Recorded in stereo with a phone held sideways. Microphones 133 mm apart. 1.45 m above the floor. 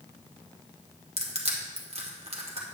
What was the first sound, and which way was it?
Crushing, 50° right (ahead or behind).